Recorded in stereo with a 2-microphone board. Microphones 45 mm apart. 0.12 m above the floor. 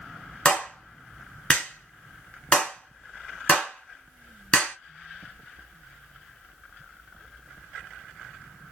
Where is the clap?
20° left (ahead or behind), 1.4 m.